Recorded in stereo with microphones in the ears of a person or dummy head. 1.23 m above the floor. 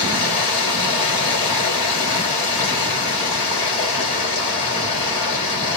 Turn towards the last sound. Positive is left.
turn(degrees=30)  # may be behind; listen again after turning